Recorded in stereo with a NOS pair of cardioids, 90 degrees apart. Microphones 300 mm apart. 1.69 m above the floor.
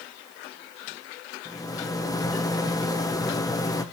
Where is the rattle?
10° left, 1.4 m.